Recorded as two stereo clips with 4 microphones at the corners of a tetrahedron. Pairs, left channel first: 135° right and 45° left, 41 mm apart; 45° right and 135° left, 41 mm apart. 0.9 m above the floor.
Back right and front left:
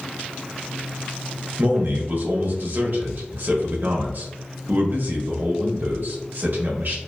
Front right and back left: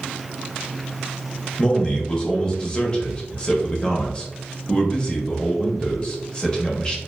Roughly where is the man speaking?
Ahead.